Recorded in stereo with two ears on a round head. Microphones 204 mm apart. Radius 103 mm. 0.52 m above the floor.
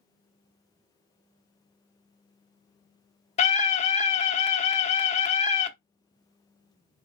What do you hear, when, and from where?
3.4 s a scream: 30° left (ahead or behind), 1.0 m